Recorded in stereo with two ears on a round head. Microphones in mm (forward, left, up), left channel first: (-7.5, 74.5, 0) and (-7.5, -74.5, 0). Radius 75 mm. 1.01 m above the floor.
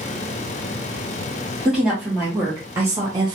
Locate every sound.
1.6 s a woman speaking: 5° right (ahead or behind), 1.2 m; by 3.4 s 30° right (ahead or behind), 0.6 m